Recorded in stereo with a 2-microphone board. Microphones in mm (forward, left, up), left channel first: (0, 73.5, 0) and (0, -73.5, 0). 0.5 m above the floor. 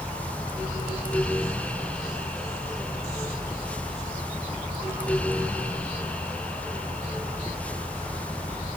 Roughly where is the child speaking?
I don't hear a child speaking.